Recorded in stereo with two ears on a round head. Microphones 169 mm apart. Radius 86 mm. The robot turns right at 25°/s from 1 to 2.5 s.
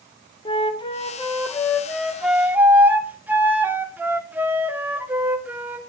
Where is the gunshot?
No gunshot in this recording.